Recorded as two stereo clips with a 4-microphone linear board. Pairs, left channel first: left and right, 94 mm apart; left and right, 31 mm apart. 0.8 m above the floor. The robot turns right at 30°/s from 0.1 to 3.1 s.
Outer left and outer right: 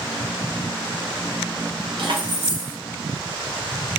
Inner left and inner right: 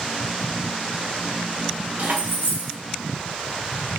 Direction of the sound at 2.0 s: 60° right (ahead or behind).